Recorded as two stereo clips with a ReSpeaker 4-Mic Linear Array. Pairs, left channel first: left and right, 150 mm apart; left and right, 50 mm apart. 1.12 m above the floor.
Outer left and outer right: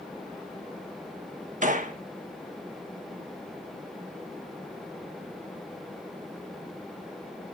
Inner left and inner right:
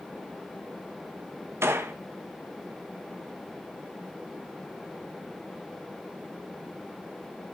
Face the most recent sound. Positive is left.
turn(degrees=-60)  # may be behind; listen again after turning